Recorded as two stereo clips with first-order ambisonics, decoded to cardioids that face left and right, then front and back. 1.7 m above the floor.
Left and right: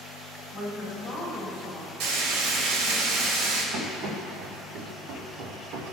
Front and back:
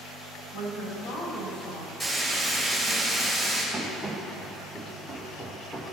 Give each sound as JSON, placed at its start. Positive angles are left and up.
{"t": 0.5, "sound": "a woman speaking", "azimuth_deg": 35, "distance_m": 4.5}
{"t": 2.0, "sound": "frying", "azimuth_deg": -80, "distance_m": 3.5}
{"t": 3.7, "sound": "running footsteps", "azimuth_deg": -95, "distance_m": 4.0}